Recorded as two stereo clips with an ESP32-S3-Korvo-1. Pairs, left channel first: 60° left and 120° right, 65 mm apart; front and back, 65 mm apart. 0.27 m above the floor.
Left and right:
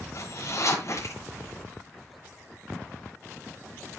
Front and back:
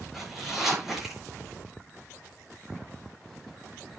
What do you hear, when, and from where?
0.1 s a zipper: 95° left, 5 m